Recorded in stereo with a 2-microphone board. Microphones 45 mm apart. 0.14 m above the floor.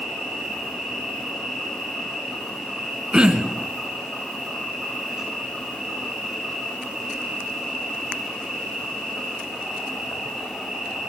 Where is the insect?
10° right (ahead or behind), 9.5 m.